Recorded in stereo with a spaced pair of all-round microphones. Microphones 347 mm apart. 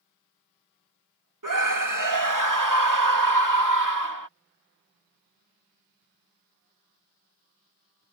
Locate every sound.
1.4 s a scream: 65° right (ahead or behind)